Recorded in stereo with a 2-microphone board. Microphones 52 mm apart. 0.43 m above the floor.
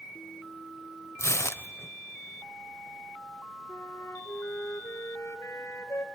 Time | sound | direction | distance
1.2 | tearing paper | 70° left (ahead or behind) | 0.8 m
3.7 | a flute | 80° left | 1.2 m